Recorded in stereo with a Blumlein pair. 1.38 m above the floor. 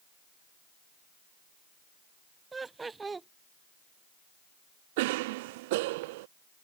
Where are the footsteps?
No footsteps in this recording.